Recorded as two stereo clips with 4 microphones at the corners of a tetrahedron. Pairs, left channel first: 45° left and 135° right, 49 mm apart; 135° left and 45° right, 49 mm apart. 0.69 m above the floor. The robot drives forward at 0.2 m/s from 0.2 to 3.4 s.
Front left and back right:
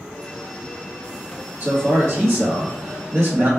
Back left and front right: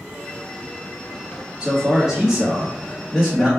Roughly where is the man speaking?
Right.